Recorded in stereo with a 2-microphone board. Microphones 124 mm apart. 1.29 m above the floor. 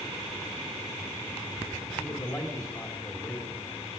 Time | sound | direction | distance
2.0 | a man speaking | 30° left (ahead or behind) | 4 m